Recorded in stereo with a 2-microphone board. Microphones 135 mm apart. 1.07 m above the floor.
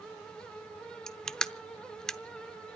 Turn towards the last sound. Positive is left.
turn(degrees=5)  # may be behind; listen again after turning